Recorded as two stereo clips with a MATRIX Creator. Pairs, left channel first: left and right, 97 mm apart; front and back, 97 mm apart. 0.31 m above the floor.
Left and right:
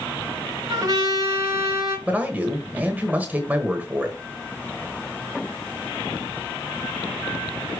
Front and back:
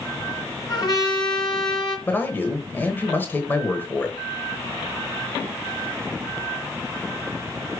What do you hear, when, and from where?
0.7 s a trumpet: 40° right, 3 m
2.1 s a man speaking: 40° right, 1.0 m